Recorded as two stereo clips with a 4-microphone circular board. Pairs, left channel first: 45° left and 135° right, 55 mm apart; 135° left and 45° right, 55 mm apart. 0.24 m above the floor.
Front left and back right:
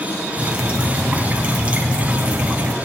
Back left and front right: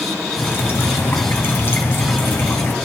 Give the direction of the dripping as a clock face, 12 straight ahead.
6 o'clock.